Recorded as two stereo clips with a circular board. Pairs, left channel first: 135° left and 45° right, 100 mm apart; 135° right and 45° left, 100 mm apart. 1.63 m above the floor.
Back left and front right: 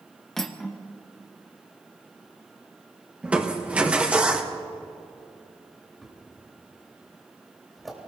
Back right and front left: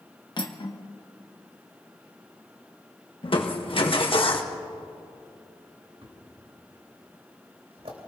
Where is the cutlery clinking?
140° right, 1.1 m.